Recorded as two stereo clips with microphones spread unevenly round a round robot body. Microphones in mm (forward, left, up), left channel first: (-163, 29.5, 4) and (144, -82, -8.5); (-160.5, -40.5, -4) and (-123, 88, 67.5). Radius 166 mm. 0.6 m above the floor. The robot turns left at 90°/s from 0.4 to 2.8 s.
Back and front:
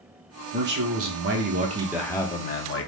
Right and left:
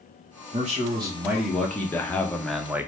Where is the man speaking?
25° left, 0.6 m; by 2.9 s 175° right, 0.6 m.